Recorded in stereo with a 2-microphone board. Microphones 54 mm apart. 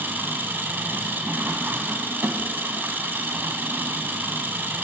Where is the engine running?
40° right (ahead or behind), 0.8 m.